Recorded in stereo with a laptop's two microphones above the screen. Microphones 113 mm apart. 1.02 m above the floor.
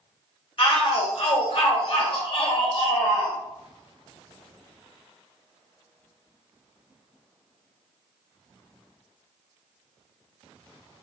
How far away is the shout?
About 1.0 m.